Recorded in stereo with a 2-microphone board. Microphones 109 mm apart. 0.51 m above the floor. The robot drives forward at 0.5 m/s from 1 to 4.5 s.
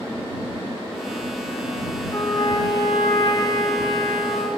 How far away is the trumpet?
About 1.7 m.